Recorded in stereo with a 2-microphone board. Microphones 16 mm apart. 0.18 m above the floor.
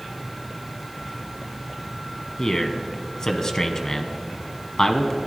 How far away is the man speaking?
About 1.2 m.